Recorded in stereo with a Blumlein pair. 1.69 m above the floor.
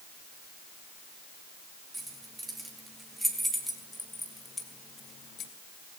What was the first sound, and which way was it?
Keys jangling, 10° right.